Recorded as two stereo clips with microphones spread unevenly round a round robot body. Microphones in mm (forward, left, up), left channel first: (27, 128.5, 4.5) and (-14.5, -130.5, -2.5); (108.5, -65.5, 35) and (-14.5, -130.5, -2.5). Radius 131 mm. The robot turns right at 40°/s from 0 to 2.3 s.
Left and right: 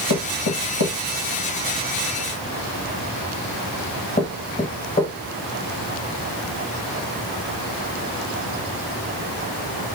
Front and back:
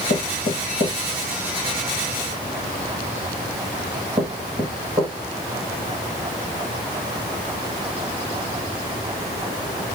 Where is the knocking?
55° left, 1.2 m; by 5.1 s 145° left, 1.2 m.